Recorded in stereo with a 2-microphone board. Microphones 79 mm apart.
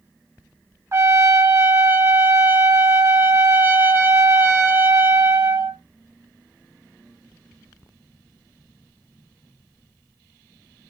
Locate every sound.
0.9 s a trumpet: 35° right (ahead or behind), 0.7 m